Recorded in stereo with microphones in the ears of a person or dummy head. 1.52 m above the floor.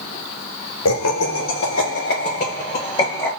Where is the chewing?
I don't hear chewing.